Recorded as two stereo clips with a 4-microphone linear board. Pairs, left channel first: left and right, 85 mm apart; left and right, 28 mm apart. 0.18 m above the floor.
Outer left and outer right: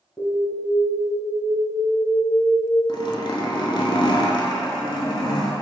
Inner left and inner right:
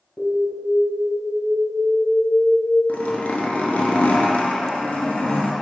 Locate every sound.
0.2 s an alarm: 30° right (ahead or behind), 1.8 m
2.9 s a zipper: 70° left (ahead or behind), 0.6 m